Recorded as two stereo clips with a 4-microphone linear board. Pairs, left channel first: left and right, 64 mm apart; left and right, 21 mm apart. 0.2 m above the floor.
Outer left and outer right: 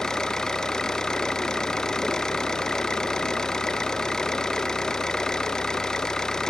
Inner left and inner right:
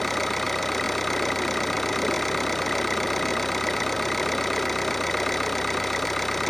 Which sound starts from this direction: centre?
An engine running, at 0.0 s.